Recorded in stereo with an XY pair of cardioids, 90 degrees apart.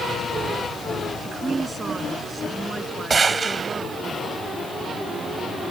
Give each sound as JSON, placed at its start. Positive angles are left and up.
{"t": 1.2, "sound": "a woman speaking", "azimuth_deg": -30}
{"t": 3.1, "sound": "a gunshot", "azimuth_deg": -35}